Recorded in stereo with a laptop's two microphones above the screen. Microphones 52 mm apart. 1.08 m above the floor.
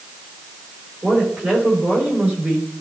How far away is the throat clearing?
I don't hear throat clearing.